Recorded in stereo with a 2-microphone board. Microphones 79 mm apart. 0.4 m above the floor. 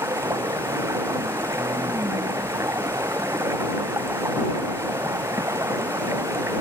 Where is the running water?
40° right (ahead or behind).